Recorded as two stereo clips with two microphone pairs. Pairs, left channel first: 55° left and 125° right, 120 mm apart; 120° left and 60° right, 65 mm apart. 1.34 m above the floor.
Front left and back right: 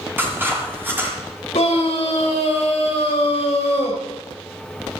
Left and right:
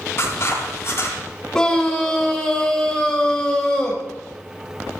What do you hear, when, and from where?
0.2 s scissors: 165° left, 7.5 m
1.5 s a scream: 40° left, 6.5 m